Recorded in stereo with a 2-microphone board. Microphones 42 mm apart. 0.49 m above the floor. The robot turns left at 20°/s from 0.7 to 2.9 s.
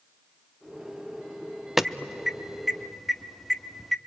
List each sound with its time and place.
1.8 s an alarm: 10° right (ahead or behind), 0.7 m; by 4.0 s centre (ahead or behind), 0.7 m